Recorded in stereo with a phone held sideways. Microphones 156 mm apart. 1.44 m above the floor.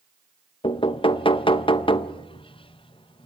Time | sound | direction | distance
0.6 | knocking | 35° left (ahead or behind) | 0.7 m